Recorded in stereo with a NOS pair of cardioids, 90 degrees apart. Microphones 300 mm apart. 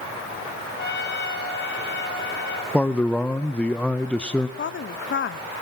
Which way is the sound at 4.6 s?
40° left.